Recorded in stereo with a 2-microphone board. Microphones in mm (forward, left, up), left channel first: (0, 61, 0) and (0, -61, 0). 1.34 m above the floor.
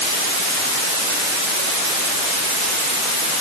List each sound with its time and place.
Only background noise.